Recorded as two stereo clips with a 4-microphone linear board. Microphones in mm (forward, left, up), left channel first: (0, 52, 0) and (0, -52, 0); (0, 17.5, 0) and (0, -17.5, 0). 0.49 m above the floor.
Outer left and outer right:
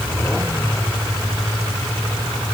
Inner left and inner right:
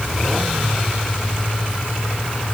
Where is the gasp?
I don't hear a gasp.